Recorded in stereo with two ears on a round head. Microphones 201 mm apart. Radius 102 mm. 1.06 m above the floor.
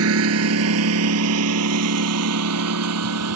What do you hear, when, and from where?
0.0 s a lawn mower: 75° right (ahead or behind); by 3.4 s 85° right